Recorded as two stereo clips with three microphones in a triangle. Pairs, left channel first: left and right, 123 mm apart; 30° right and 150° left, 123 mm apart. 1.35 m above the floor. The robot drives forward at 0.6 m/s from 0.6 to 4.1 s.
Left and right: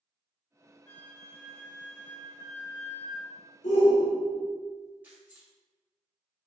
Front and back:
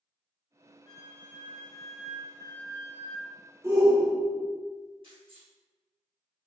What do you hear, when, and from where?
0.9 s a flute: 20° left, 1.0 m; by 3.3 s 160° left, 1.1 m
3.6 s a shout: 85° left, 1.4 m; by 4.5 s 95° left, 1.4 m
5.0 s keys jangling: 165° right, 1.8 m